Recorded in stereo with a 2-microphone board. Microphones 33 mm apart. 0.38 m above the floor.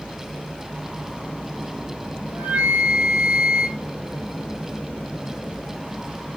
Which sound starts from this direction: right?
A flute, at 2.3 s.